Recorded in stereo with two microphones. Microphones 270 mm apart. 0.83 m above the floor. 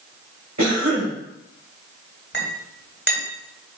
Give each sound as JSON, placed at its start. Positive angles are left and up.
{"t": 0.6, "sound": "a cough", "side_deg": -80, "distance_m": 5.5}
{"t": 2.3, "sound": "a clink", "side_deg": 40, "distance_m": 3.5}